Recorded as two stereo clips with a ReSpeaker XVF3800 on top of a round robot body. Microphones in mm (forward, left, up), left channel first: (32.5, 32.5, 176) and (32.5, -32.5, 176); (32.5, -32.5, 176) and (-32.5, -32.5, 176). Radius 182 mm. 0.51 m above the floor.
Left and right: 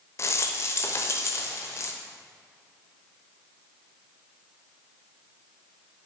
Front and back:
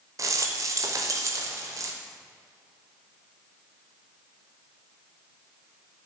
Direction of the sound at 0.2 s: 140° left.